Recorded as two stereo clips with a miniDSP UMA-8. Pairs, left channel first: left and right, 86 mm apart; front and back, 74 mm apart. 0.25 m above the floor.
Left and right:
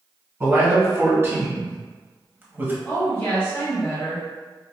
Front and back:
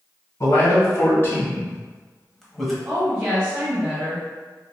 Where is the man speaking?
35° right, 1.9 m; by 2.8 s 90° right, 1.1 m.